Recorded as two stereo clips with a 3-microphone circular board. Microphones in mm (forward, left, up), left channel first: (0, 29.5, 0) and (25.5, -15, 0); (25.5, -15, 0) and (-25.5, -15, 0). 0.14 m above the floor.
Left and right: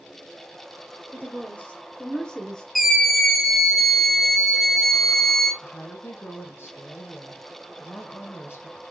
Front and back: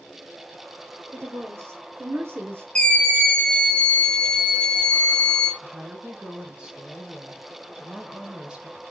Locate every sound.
1.1 s a woman speaking: 170° left, 2.5 m; by 2.6 s 165° right, 1.7 m
2.8 s a scream: 25° left, 1.2 m
5.6 s a woman speaking: 110° left, 1.9 m